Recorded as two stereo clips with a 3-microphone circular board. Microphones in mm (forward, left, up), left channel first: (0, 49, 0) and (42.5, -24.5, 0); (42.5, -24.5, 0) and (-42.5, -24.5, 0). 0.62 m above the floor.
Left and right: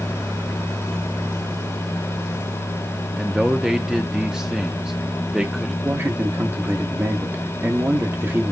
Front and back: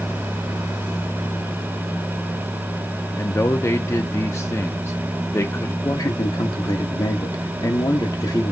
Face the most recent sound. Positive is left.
turn(degrees=-5)